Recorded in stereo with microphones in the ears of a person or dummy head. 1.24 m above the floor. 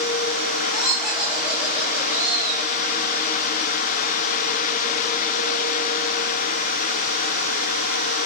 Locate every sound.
0.7 s laughter: 5° right (ahead or behind), 9 m; by 2.7 s 10° right (ahead or behind), 6.5 m